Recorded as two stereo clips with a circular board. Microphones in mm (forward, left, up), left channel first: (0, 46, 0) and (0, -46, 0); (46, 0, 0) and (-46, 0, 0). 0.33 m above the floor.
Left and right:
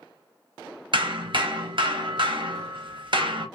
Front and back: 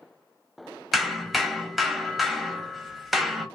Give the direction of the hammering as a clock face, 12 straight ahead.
3 o'clock.